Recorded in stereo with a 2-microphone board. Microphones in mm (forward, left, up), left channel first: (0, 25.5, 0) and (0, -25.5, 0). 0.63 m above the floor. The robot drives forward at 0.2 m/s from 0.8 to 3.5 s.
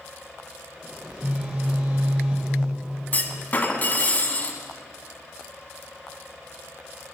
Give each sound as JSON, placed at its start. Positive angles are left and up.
{"t": 1.0, "sound": "a phone buzzing", "side_deg": -30, "distance_m": 1.6}
{"t": 3.1, "sound": "a clunk", "side_deg": 35, "distance_m": 1.1}